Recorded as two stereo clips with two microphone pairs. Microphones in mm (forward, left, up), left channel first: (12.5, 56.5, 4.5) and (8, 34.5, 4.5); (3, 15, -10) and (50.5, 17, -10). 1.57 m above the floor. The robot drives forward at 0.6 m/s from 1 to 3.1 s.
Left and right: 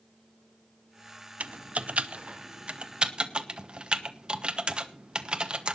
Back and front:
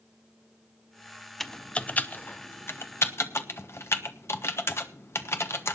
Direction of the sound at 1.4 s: 90° right.